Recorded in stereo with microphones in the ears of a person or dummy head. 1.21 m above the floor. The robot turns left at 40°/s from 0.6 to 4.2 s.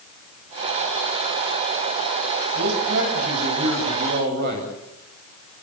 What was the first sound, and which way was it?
A man speaking, 65° right.